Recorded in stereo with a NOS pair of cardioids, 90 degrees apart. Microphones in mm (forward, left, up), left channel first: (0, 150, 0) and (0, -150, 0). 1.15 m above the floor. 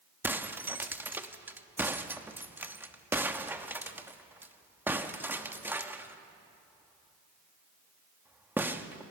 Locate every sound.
0.2 s breaking glass: 5° right, 1.1 m